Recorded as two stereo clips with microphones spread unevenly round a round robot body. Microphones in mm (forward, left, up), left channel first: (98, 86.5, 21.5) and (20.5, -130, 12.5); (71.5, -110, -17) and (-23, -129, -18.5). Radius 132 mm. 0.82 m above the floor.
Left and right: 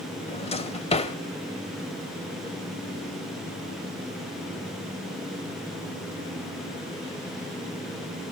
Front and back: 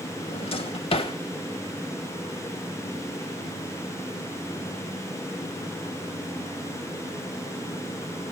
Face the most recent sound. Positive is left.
turn(degrees=10)